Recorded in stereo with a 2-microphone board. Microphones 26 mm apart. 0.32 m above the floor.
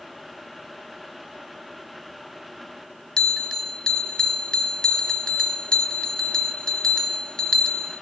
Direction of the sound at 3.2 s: 30° left (ahead or behind).